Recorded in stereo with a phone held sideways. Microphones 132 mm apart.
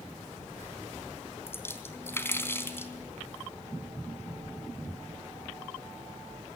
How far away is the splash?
About 3 m.